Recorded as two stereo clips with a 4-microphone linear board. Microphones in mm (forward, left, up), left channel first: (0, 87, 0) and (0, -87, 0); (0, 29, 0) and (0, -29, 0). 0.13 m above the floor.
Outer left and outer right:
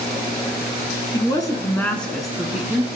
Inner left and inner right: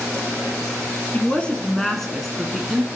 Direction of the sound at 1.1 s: 25° left (ahead or behind).